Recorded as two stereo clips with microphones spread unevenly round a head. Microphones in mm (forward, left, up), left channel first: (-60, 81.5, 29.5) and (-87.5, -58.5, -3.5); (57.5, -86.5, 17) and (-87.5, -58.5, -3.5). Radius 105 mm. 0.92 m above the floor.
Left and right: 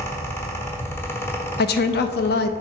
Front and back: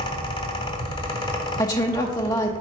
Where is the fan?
5° right, 0.8 m.